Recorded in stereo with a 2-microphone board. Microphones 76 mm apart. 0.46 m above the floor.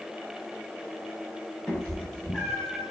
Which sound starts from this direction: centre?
A cat meowing, at 1.7 s.